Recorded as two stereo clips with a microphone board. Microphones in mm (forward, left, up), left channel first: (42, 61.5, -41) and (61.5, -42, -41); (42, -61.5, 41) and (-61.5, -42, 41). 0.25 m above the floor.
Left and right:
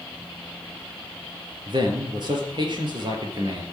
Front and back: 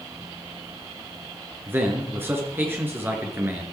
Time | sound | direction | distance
1.7 | a man speaking | 120° right | 4 m